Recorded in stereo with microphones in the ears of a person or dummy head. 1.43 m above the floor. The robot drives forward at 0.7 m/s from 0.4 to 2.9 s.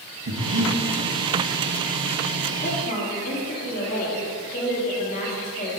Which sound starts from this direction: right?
Breathing, at 0.3 s.